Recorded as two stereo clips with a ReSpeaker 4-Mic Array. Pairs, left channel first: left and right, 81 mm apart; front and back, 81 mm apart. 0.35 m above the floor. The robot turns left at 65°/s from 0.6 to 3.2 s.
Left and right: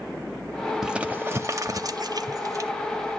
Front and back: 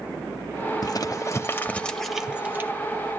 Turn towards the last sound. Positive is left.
turn(degrees=-160)